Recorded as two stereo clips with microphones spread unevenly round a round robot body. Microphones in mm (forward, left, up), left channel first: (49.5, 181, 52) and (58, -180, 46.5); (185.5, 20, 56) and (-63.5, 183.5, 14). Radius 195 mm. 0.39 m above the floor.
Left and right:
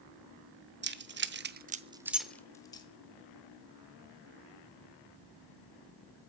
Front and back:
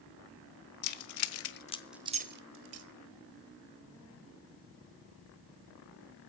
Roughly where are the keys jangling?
Ahead right.